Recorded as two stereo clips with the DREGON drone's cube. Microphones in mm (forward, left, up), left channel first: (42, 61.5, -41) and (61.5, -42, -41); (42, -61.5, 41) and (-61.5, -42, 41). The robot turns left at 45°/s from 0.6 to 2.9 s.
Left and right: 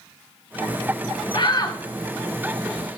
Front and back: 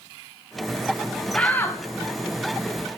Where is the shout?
70° left, 1.4 m; by 1.8 s 50° left, 1.4 m.